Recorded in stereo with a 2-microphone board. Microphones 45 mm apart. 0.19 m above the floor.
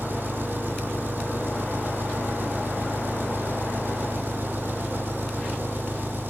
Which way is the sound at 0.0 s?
55° right (ahead or behind).